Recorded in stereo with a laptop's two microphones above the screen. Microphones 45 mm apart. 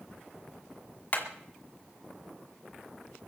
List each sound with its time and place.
1.1 s hammering: 40° left (ahead or behind), 2 m